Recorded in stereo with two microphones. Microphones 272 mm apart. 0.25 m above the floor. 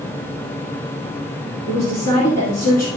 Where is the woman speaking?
70° left (ahead or behind), 3 m.